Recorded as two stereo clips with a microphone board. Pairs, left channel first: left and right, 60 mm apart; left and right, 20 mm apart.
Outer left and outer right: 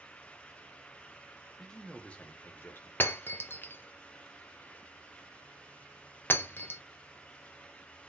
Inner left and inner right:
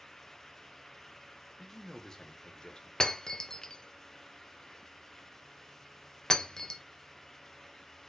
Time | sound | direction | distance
1.6 | a man speaking | 5° left (ahead or behind) | 1.1 m
3.0 | breaking glass | 35° left (ahead or behind) | 0.7 m